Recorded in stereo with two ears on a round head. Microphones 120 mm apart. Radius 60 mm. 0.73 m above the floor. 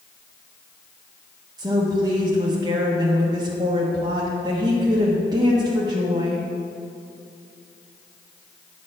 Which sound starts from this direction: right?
A woman speaking, at 1.6 s.